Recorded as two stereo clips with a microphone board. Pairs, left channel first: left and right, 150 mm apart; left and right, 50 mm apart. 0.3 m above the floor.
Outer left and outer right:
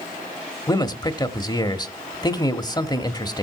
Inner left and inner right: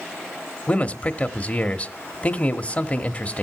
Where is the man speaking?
30° left (ahead or behind), 1.0 m.